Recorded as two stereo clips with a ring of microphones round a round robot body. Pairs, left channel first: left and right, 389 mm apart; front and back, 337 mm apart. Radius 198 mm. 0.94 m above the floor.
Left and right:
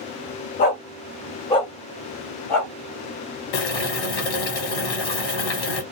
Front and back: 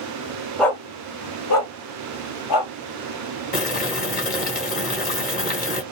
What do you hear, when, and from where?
0.6 s a dog barking: 85° left, 0.6 m; by 2.7 s 5° left, 1.4 m
3.5 s boiling: 65° left, 1.4 m